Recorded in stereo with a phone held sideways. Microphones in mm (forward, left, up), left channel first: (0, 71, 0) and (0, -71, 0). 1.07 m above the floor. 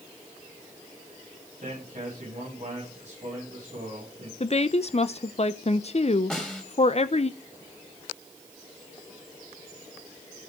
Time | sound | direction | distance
1.6 | a man speaking | 50° right (ahead or behind) | 7.5 m
4.4 | a woman speaking | 45° left (ahead or behind) | 0.6 m
6.3 | a snare drum | 5° left (ahead or behind) | 3 m